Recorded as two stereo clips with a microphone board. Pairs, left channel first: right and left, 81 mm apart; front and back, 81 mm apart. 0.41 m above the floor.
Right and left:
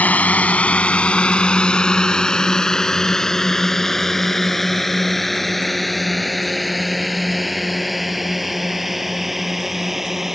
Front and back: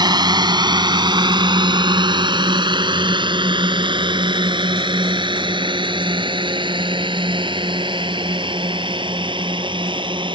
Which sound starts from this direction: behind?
A drone, at 0.0 s.